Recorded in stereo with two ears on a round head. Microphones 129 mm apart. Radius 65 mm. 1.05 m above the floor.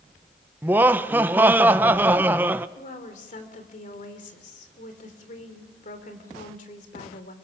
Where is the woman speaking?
60° left (ahead or behind), 3 m.